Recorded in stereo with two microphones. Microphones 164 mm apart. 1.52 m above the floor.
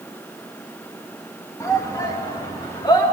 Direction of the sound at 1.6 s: 20° left (ahead or behind).